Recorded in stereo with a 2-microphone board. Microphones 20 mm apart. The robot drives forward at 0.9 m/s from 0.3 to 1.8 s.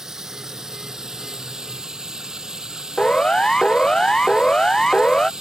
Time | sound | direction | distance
0.0 | running water | 25° right (ahead or behind) | ?
3.0 | a siren | 40° left (ahead or behind) | ?